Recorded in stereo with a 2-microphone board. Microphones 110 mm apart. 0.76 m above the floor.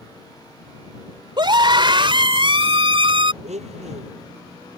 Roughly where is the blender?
Right.